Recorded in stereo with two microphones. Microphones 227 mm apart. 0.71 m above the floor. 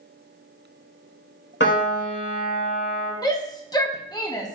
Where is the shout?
15° left (ahead or behind), 0.6 m.